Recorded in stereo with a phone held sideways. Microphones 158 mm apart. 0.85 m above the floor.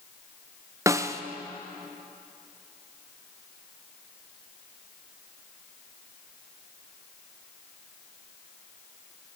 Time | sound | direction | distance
0.9 | a snare drum | 20° right (ahead or behind) | 0.5 m